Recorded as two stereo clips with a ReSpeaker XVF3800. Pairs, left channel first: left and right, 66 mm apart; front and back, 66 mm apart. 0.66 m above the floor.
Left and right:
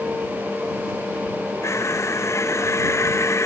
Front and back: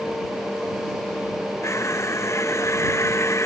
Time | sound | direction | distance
1.6 | crushing | 45° left | ?